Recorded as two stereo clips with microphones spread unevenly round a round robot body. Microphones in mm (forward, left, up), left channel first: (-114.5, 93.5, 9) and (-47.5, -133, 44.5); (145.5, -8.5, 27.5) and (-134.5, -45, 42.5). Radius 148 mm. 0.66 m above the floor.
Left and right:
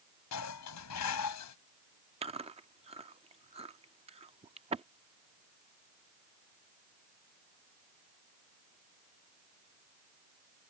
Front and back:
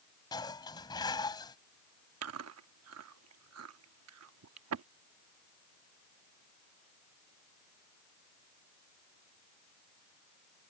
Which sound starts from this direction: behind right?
Chewing, at 2.2 s.